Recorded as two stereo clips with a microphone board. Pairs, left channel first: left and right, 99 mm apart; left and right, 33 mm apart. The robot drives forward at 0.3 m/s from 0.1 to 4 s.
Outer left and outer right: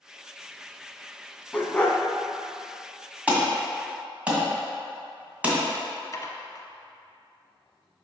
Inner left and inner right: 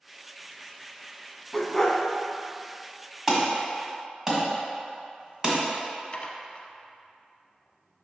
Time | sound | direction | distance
1.5 | a dog barking | 15° left (ahead or behind) | 0.7 m
3.3 | an alarm | 15° right (ahead or behind) | 1.9 m
6.1 | dishes clattering | 35° left (ahead or behind) | 0.8 m